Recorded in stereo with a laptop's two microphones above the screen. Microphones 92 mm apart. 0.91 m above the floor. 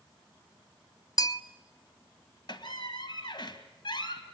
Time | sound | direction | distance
1.2 | a bell | 45° left (ahead or behind) | 0.6 m
2.5 | a squeak | 55° left (ahead or behind) | 2 m